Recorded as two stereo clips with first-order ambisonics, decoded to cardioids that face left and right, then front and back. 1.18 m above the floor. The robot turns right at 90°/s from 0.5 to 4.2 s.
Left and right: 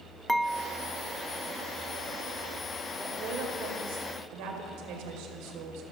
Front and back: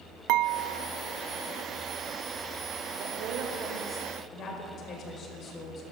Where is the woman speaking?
165° right, 5 m; by 5.8 s 60° right, 5 m.